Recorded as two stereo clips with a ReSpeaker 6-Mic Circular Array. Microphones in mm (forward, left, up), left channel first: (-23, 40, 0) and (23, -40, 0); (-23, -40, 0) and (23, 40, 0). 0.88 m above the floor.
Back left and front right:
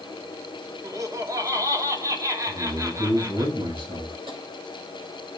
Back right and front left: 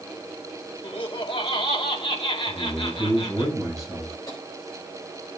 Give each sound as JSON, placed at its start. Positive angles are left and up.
{"t": 0.8, "sound": "laughter", "azimuth_deg": -110, "distance_m": 2.0}
{"t": 2.5, "sound": "a man speaking", "azimuth_deg": -30, "distance_m": 5.0}
{"t": 4.3, "sound": "tapping", "azimuth_deg": -70, "distance_m": 4.0}